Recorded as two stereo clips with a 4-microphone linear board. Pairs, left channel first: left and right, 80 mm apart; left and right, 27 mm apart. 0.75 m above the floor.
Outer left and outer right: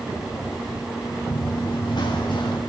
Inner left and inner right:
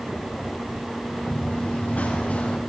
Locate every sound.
1.3 s running footsteps: 70° left (ahead or behind), 6.5 m; by 2.6 s 75° left (ahead or behind), 5.5 m